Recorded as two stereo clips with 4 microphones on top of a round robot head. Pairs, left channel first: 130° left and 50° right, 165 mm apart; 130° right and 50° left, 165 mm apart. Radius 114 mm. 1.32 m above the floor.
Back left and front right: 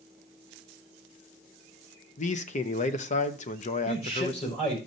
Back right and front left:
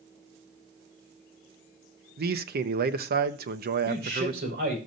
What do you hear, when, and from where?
2.2 s a man speaking: 80° left, 0.7 m
3.9 s a man speaking: 80° left, 5 m